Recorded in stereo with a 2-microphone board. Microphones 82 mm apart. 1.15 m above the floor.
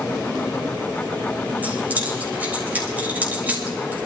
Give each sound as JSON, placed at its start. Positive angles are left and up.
{"t": 1.6, "sound": "keys jangling", "side_deg": -20, "distance_m": 4.0}